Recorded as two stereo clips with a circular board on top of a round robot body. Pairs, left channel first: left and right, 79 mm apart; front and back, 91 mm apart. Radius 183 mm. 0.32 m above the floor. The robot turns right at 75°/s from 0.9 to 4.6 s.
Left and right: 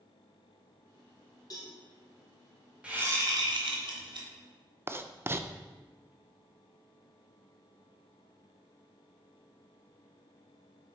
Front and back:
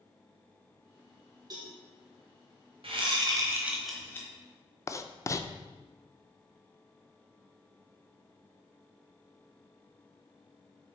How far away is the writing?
About 0.6 m.